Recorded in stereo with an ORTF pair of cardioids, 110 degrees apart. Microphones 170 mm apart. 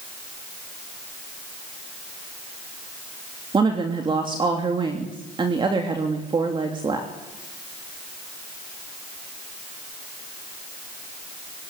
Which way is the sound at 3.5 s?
30° right.